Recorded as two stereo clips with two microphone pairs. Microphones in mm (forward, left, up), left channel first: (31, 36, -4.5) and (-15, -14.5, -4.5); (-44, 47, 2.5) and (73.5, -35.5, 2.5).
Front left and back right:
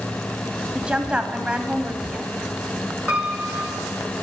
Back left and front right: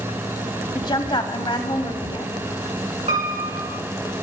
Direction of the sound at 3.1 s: 60° right.